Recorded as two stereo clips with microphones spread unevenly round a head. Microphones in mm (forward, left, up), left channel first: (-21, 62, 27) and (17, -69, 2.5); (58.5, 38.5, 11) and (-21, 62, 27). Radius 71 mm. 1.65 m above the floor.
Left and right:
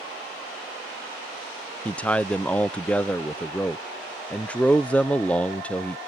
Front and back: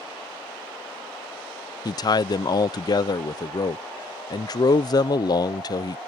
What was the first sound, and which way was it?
A man speaking, 30° left.